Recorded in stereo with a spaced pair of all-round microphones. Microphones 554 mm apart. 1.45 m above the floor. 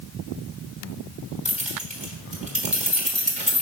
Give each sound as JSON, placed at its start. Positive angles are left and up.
{"t": 1.4, "sound": "keys jangling", "side_deg": -10, "distance_m": 1.2}